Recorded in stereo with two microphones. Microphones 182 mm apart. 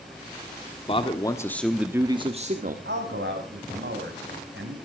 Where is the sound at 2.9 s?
80° right, 4.5 m.